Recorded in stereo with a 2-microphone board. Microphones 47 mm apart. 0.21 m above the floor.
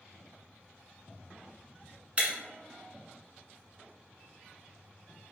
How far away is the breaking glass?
About 0.9 m.